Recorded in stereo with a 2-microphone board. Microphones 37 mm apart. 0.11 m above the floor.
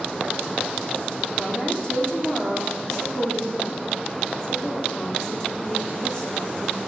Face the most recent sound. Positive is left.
turn(degrees=15)  # may be behind; listen again after turning